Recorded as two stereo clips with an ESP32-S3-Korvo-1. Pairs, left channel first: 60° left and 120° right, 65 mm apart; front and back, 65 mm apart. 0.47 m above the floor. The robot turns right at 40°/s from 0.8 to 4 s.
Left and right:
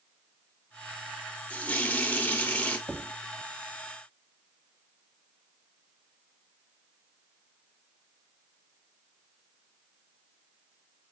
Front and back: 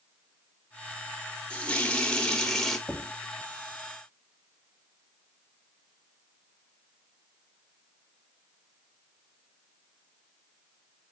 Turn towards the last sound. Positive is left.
turn(degrees=-15)